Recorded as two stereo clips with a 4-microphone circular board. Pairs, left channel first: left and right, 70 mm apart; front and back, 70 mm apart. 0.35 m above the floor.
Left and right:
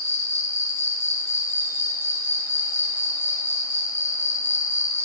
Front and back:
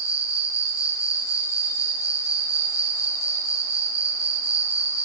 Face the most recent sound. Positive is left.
turn(degrees=35)